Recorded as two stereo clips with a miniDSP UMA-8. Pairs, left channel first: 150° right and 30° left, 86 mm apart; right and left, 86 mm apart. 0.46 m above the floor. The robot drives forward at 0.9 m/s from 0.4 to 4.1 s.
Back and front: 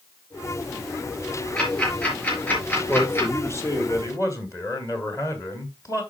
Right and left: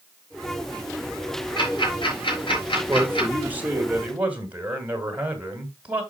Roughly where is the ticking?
Right.